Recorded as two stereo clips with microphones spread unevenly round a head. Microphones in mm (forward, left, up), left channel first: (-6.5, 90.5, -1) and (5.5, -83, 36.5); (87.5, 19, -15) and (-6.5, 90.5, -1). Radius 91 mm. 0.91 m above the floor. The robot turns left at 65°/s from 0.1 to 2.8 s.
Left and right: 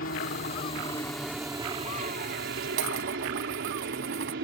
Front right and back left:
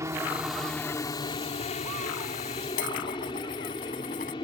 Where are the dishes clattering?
60° right; by 4.3 s 65° right.